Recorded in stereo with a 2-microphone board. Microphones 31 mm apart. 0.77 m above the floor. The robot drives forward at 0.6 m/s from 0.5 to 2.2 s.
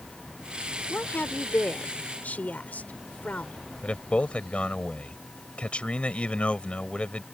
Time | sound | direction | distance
0.9 | a woman speaking | 80° left | ?
3.8 | a man speaking | 40° left (ahead or behind) | ?